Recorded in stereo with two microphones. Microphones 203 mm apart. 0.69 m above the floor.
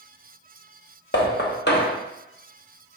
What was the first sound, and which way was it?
Knocking, 55° left (ahead or behind).